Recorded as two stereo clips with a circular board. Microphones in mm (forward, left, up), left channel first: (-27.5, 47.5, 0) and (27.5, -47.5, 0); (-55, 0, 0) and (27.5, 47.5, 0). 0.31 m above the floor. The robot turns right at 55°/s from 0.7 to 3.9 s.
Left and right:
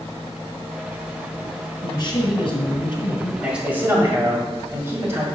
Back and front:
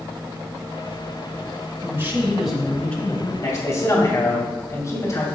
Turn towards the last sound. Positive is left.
turn(degrees=-115)